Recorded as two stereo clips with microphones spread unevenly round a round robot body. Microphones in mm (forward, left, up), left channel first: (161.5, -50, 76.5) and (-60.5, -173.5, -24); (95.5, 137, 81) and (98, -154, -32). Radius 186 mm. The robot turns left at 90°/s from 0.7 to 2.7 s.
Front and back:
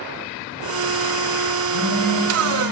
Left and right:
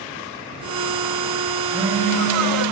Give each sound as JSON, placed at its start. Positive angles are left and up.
{"t": 1.6, "sound": "a phone buzzing", "azimuth_deg": 10, "distance_m": 4.0}